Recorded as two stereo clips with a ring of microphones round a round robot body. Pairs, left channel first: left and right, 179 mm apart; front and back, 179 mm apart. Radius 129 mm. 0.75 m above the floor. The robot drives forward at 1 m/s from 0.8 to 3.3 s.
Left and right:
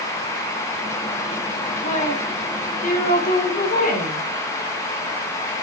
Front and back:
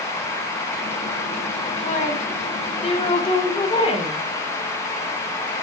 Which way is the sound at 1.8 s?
45° left.